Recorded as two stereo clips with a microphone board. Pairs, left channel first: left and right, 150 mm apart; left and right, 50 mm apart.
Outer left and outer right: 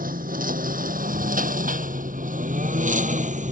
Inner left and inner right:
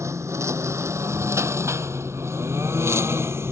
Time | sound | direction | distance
0.0 | a lawn mower | 70° right (ahead or behind) | ?